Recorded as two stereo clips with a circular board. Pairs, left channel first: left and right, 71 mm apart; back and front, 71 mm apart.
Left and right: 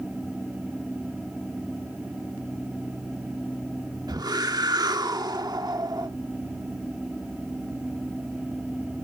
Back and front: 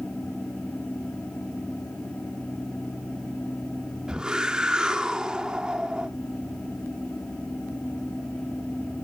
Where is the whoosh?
80° right, 1.4 m.